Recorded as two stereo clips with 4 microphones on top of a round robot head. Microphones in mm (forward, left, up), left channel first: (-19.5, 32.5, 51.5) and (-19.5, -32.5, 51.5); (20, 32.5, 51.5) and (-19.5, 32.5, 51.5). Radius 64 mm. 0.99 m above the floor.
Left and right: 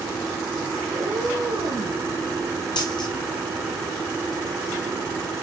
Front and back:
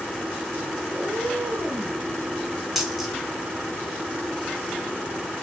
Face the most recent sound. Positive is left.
turn(degrees=90)